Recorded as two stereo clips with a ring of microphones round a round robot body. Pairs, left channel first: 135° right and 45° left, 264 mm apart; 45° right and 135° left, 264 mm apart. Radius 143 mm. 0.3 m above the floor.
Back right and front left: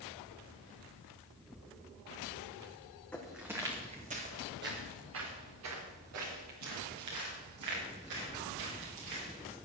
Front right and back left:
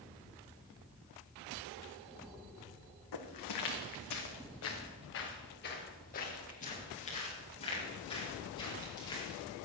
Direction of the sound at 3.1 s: 50° right.